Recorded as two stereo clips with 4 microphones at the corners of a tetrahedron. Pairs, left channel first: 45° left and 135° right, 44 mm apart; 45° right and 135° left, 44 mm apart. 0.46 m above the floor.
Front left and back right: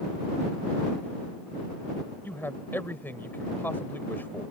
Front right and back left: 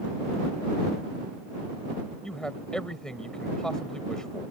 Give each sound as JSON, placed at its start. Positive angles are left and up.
{"t": 2.2, "sound": "a man speaking", "azimuth_deg": 25}